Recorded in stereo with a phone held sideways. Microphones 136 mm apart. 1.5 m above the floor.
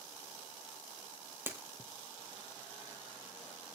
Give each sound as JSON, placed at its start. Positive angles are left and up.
{"t": 1.5, "sound": "breaking glass", "side_deg": -15, "distance_m": 2.0}